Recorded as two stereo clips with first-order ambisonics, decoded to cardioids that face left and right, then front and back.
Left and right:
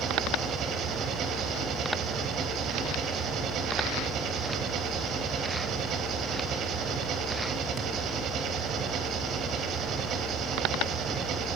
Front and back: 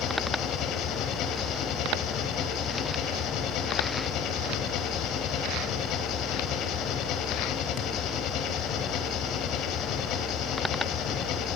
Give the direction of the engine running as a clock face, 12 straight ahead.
1 o'clock.